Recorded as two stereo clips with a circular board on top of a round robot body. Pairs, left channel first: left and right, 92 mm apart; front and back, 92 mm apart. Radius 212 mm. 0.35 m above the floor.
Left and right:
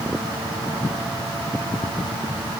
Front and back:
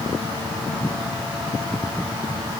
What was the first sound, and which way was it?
Only background noise.